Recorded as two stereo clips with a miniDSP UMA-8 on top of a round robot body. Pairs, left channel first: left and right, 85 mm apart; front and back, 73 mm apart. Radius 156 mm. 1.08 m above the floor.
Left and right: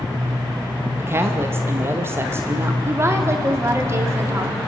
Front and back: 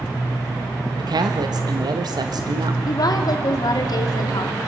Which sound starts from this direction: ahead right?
A woman speaking, at 2.9 s.